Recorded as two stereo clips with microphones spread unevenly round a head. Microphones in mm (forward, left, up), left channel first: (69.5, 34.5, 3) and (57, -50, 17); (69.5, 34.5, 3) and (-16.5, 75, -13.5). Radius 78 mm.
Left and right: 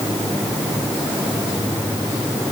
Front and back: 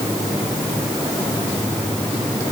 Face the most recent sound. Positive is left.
No sound to turn to.